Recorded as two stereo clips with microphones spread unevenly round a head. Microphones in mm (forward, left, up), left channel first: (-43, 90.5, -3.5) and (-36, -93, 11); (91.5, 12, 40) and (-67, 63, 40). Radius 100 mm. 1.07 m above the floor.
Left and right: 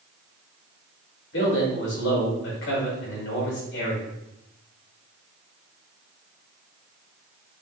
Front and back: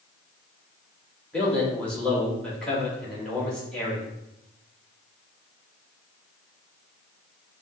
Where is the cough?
I don't hear a cough.